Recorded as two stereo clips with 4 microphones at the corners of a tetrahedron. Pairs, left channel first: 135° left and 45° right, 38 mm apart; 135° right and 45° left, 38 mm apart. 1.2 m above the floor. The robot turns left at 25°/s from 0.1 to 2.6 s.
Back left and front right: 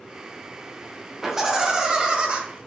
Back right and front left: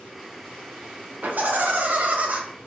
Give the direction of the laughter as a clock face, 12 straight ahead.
11 o'clock.